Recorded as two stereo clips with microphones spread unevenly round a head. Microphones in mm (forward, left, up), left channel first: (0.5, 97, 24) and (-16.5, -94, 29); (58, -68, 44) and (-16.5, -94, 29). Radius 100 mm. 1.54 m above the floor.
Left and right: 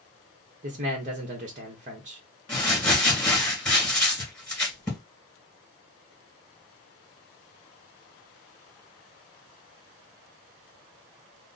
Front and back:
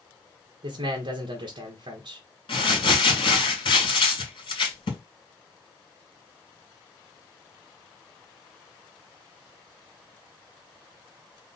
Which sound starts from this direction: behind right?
A man speaking, at 0.6 s.